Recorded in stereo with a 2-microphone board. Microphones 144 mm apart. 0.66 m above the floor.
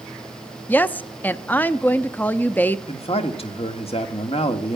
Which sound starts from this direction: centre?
A woman speaking, at 0.7 s.